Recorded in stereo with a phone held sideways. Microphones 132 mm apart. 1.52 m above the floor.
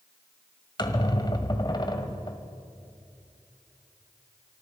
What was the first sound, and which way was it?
A squeak, 35° left (ahead or behind).